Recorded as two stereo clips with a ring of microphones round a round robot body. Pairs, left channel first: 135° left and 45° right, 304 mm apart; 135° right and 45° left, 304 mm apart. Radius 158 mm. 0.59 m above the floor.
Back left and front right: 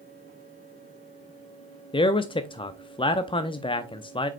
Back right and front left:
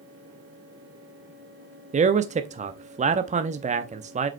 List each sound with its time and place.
1.9 s a man speaking: 80° left, 0.6 m